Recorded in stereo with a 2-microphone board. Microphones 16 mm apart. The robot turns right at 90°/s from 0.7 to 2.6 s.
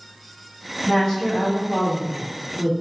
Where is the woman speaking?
115° left, 1.6 m; by 2.7 s 90° right, 1.6 m.